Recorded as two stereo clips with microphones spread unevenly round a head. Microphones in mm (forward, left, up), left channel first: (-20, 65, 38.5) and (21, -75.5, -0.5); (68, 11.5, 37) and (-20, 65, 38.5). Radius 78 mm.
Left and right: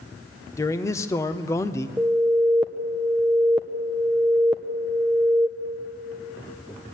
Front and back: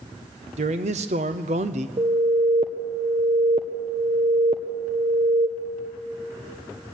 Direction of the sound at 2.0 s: 160° right.